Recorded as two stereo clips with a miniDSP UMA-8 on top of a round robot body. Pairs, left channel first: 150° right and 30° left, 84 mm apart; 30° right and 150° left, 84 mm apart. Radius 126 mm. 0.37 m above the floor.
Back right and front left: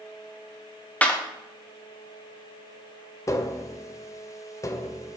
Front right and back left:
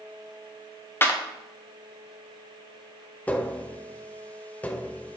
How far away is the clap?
About 1.6 m.